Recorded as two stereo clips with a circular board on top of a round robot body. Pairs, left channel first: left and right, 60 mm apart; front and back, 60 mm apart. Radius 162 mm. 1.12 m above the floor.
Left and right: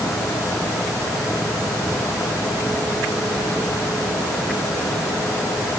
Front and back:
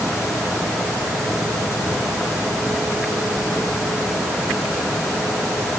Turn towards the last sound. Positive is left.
No sound to turn to.